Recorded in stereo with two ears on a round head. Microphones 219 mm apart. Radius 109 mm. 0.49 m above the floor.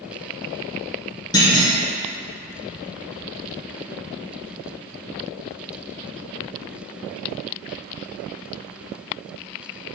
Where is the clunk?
15° left (ahead or behind), 1.4 m.